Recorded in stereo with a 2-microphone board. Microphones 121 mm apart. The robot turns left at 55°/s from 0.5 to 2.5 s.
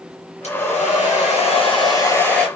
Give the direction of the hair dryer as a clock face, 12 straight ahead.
8 o'clock.